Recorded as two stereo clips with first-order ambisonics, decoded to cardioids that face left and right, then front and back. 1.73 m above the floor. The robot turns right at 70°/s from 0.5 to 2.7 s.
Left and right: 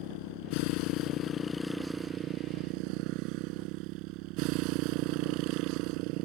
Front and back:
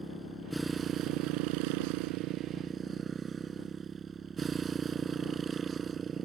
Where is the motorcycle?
90° left; by 6.3 s 115° right.